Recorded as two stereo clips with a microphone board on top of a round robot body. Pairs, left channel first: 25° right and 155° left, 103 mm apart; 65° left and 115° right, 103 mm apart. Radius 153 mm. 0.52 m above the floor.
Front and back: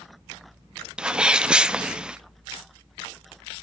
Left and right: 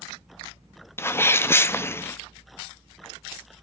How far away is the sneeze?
About 0.6 m.